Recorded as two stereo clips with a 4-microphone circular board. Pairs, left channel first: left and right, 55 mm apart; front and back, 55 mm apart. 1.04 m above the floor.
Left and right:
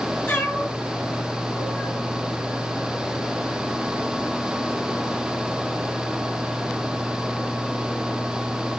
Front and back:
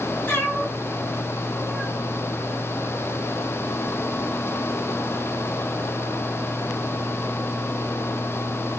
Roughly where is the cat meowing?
Ahead left.